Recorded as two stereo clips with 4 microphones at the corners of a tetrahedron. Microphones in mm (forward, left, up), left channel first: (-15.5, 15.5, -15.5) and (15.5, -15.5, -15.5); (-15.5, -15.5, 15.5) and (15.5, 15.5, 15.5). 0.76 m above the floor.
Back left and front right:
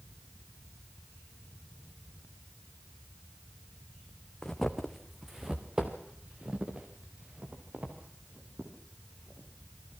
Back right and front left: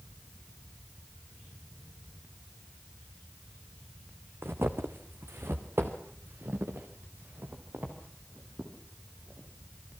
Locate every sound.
4.4 s footsteps: 60° left, 2.5 m; by 9.5 s 5° left, 8.5 m